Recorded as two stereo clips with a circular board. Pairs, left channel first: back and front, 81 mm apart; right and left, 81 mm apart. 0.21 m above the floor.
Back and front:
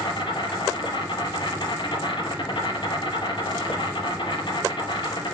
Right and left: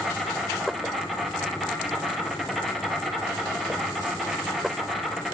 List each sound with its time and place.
0.0 s an insect: straight behind, 2.5 m